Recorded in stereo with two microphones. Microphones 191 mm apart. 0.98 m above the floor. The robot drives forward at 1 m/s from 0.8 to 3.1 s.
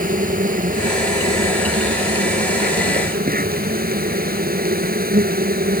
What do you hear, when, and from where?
0.0 s an insect: 45° right (ahead or behind); by 5.8 s 50° right (ahead or behind)